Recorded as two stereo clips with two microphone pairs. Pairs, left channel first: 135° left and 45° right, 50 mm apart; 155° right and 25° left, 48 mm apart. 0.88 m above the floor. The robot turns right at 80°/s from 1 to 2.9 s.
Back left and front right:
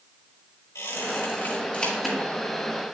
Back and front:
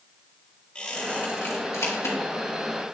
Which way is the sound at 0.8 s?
135° left.